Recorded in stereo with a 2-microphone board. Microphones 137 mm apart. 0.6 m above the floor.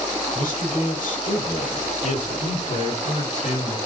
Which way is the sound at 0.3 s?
75° left (ahead or behind).